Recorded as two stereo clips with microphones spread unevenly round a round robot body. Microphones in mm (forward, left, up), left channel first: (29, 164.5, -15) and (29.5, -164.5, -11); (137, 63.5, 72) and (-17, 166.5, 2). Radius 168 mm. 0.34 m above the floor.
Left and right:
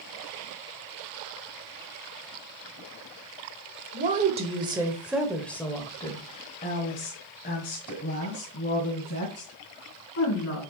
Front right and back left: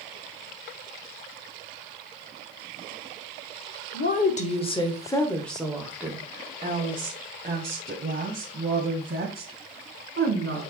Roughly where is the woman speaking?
Ahead right.